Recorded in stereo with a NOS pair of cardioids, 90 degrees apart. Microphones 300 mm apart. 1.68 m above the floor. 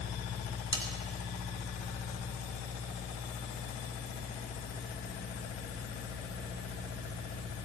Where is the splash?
I don't hear a splash.